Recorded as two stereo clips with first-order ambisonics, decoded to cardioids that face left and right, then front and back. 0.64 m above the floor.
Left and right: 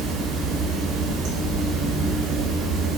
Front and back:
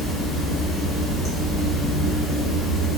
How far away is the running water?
About 1.2 m.